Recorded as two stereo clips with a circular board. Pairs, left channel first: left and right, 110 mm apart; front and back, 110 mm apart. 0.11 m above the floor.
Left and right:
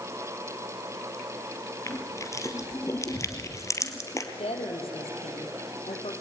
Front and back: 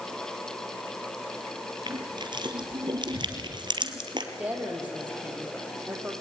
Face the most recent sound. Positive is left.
turn(degrees=105)